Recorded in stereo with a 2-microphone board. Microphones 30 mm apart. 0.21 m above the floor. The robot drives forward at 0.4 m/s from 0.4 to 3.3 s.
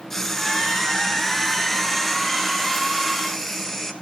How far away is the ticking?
I don't hear ticking.